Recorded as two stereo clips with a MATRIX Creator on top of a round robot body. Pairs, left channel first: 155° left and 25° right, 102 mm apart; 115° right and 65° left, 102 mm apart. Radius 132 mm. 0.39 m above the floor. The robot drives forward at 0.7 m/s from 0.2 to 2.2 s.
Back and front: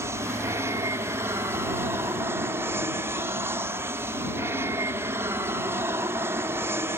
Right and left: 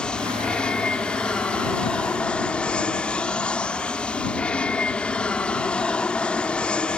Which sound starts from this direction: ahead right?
An aircraft, at 0.0 s.